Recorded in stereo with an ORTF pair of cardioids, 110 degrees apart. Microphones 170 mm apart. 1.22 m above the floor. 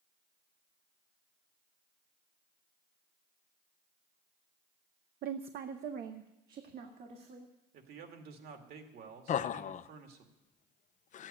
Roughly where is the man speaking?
Ahead right.